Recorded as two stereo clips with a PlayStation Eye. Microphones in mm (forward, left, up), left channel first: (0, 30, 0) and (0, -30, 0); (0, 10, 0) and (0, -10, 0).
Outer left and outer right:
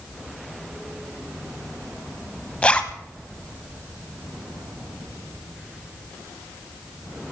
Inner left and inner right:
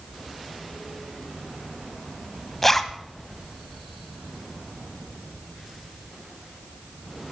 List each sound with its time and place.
2.6 s a zipper: 20° left (ahead or behind), 1.2 m